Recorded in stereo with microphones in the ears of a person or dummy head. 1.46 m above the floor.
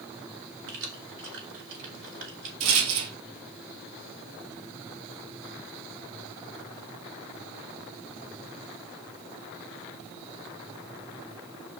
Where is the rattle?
80° right, 1.5 m.